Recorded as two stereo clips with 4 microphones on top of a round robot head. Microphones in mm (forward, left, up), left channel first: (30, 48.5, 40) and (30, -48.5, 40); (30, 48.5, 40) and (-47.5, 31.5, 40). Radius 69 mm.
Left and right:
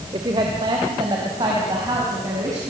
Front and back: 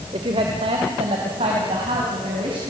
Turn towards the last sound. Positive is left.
turn(degrees=-150)